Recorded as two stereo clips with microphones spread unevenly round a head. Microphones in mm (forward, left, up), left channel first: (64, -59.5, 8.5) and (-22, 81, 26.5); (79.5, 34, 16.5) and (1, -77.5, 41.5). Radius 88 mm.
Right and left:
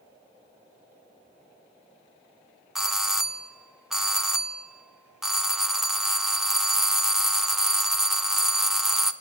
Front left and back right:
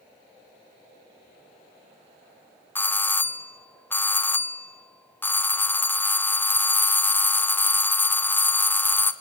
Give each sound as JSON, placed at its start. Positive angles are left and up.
{"t": 2.8, "sound": "a doorbell", "azimuth_deg": 25, "distance_m": 0.7}